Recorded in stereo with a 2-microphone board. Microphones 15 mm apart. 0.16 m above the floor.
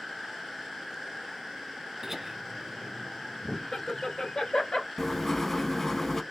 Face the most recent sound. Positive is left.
turn(degrees=25)  # may be behind; listen again after turning